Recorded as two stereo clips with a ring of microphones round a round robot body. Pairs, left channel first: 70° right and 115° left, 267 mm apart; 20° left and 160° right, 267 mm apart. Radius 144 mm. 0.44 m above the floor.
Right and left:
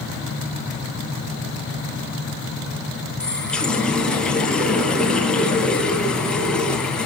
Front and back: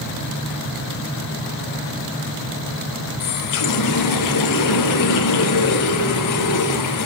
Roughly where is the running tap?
Ahead.